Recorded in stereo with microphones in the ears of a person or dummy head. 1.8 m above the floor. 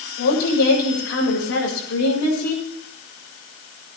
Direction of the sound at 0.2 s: 80° left.